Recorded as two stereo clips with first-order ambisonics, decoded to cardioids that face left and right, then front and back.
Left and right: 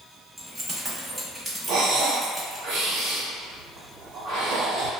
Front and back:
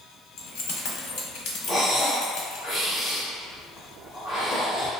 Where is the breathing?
75° right, 1.0 m.